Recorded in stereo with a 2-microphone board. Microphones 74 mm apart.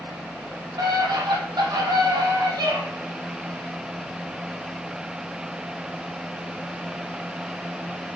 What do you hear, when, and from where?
0.8 s a scream: 75° right (ahead or behind), 5 m